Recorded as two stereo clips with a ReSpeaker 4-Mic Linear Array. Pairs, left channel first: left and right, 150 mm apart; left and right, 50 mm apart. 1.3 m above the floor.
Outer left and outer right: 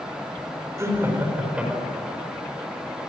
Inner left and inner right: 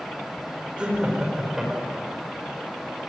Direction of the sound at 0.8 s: 20° right (ahead or behind).